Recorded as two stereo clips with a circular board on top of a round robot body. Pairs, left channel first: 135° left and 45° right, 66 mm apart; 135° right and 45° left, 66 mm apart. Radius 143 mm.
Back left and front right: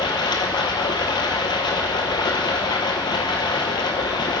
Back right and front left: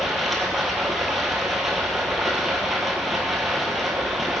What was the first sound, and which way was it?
Running water, 130° left.